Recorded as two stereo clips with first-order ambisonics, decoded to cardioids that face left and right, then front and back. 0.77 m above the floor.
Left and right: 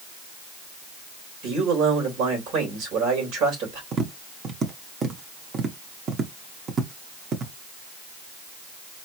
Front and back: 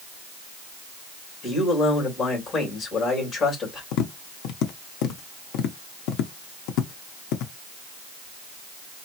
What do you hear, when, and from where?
1.4 s a man speaking: 65° right, 3 m
3.9 s tapping: 25° right, 0.7 m